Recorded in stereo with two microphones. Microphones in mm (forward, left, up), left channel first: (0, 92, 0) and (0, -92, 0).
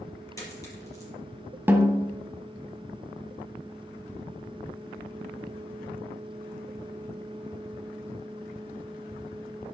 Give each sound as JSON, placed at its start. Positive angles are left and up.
{"t": 0.4, "sound": "a dropped coin", "side_deg": 20, "distance_m": 5.0}
{"t": 1.7, "sound": "a snare drum", "side_deg": -10, "distance_m": 1.5}